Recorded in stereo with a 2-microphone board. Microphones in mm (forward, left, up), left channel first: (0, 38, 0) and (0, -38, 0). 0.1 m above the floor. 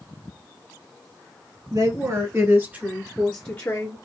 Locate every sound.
1.7 s a woman speaking: 50° right (ahead or behind), 2.5 m; by 4.0 s 30° left (ahead or behind), 1.9 m